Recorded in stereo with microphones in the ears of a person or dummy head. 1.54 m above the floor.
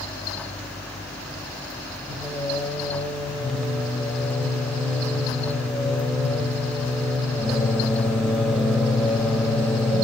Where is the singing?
5° right (ahead or behind), 1.0 m.